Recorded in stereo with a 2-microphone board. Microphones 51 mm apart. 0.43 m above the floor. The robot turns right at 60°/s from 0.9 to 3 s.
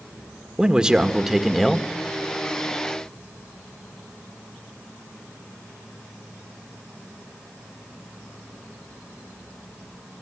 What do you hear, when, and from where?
0.6 s a man speaking: 15° right (ahead or behind), 1.3 m; by 1.9 s 10° left (ahead or behind), 1.3 m